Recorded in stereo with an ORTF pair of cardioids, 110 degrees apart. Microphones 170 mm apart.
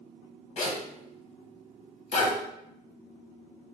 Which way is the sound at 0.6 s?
50° left.